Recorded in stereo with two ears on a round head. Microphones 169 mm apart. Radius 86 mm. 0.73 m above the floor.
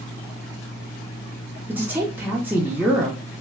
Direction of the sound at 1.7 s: 10° right (ahead or behind).